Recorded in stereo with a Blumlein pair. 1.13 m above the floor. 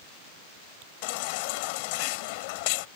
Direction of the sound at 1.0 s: 45° left.